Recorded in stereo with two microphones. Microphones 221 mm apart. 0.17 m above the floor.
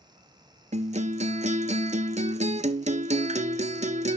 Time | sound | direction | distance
0.7 | a guitar | 35° right (ahead or behind) | 0.5 m